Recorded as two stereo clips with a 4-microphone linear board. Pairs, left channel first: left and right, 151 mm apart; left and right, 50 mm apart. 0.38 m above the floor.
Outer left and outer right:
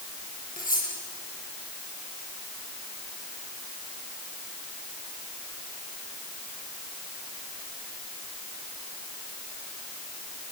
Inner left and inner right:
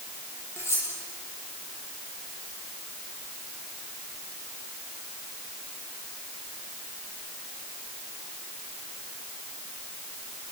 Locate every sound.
0.6 s cutlery clinking: 65° left (ahead or behind), 9 m